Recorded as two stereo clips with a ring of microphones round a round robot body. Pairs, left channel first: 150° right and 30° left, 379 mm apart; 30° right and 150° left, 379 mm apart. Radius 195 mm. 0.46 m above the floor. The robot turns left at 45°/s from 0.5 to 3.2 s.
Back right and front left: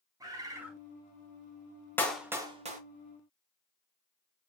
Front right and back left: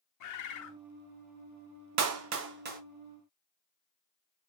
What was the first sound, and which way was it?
A bird, 50° right.